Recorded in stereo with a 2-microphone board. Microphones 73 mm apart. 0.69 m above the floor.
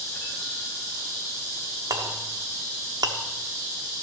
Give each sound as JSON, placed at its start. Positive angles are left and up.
{"t": 1.9, "sound": "a clink", "side_deg": -70, "distance_m": 0.8}